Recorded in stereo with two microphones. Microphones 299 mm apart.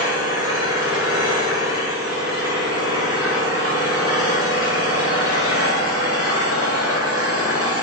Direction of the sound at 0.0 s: 50° right (ahead or behind).